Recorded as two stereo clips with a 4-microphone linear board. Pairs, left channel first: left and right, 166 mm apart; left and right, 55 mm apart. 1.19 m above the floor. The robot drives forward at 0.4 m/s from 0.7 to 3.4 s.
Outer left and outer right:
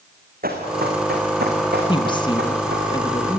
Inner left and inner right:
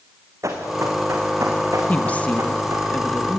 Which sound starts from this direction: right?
Running footsteps, at 0.4 s.